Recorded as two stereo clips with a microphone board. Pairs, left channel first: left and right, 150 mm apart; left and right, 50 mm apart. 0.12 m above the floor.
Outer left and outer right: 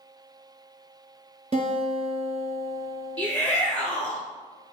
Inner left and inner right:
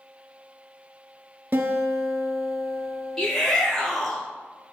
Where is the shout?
5° left (ahead or behind), 1.5 m.